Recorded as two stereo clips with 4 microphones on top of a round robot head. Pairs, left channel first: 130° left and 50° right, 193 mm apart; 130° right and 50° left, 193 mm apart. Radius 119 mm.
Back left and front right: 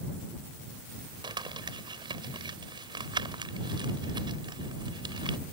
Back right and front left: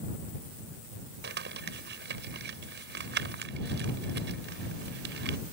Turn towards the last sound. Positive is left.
turn(degrees=15)